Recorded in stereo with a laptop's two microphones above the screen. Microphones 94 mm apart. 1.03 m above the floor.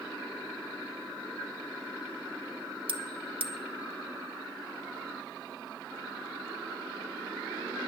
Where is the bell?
80° right, 0.9 m.